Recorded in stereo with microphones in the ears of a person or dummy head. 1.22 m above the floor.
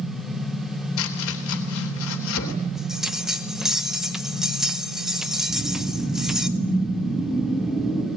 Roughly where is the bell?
Centre.